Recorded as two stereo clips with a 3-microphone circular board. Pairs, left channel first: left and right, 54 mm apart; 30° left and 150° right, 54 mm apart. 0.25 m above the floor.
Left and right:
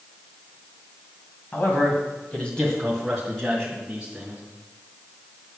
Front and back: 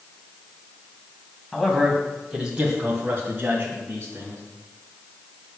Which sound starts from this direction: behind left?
A man speaking, at 1.5 s.